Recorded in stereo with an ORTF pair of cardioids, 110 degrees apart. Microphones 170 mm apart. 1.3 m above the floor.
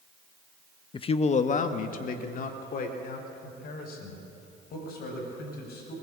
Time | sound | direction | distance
0.9 | a man speaking | 25° left | 1.0 m